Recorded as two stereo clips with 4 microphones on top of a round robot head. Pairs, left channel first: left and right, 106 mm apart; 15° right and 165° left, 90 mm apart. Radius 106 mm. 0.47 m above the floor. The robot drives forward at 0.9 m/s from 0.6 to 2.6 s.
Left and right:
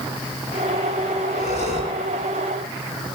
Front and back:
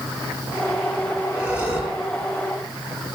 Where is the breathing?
90° left, 9.5 m.